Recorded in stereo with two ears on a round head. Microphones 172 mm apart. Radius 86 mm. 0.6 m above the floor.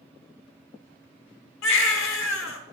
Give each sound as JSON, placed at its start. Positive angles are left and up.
{"t": 1.6, "sound": "a baby crying", "side_deg": 70, "distance_m": 0.9}